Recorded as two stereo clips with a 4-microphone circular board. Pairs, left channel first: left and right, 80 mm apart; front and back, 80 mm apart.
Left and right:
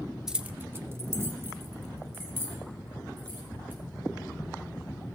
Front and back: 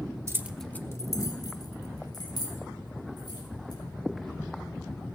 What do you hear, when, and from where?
0.3 s keys jangling: 170° right, 0.7 m; by 3.8 s 25° right, 5 m